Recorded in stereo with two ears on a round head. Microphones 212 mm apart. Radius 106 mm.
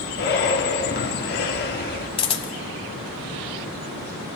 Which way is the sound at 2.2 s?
25° left (ahead or behind).